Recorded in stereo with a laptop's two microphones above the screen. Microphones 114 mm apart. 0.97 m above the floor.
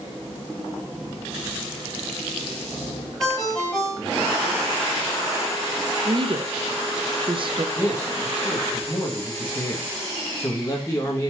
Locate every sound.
3.2 s a ringtone: 5° left (ahead or behind), 2 m
6.0 s a woman speaking: 45° right (ahead or behind), 0.7 m
7.8 s a man speaking: 25° left (ahead or behind), 1.3 m